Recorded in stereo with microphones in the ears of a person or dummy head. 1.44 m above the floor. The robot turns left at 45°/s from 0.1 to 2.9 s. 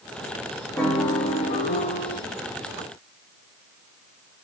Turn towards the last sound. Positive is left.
turn(degrees=75)